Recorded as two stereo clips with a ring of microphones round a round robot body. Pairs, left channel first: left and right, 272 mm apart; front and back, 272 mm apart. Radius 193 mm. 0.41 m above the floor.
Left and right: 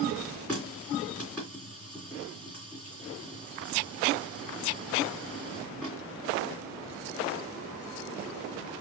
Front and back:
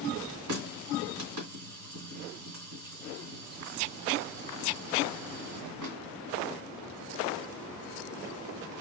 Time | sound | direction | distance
0.5 | a running tap | 175° left | 2 m